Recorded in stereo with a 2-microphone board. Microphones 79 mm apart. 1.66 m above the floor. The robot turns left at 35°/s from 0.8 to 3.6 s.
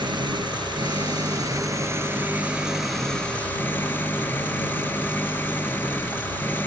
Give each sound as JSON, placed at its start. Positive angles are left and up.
{"t": 0.0, "sound": "an engine running", "azimuth_deg": -105}